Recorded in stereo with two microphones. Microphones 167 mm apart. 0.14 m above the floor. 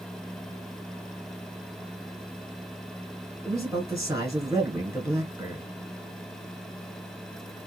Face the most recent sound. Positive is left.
turn(degrees=-20)  # may be behind; listen again after turning